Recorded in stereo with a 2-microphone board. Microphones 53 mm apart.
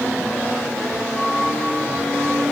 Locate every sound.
1.1 s a flute: 30° left (ahead or behind), 3.5 m